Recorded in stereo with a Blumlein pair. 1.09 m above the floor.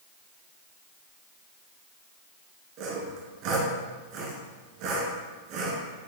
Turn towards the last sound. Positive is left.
turn(degrees=-40)